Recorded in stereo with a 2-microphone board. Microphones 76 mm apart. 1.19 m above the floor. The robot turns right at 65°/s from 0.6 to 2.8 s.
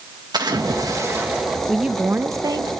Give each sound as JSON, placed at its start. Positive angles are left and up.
{"t": 0.3, "sound": "a splash", "azimuth_deg": -70, "distance_m": 1.7}
{"t": 1.7, "sound": "a woman speaking", "azimuth_deg": 180, "distance_m": 0.7}